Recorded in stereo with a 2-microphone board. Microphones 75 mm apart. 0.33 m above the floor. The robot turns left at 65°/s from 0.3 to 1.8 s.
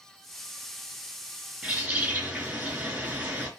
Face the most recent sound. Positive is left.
turn(degrees=-20)  # may be behind; listen again after turning